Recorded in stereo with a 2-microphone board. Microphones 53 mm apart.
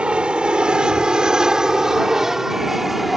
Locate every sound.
0.0 s an aircraft: 20° right (ahead or behind); by 3.2 s centre (ahead or behind)